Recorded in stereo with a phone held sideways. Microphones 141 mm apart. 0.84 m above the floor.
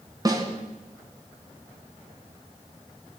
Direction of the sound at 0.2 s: 25° right (ahead or behind).